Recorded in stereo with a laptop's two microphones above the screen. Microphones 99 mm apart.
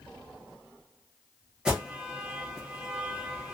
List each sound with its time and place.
1.6 s an alarm: 10° right (ahead or behind), 0.8 m